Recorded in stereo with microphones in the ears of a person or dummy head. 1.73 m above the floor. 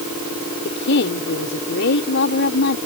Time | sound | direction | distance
0.7 | a woman speaking | 60° left (ahead or behind) | ?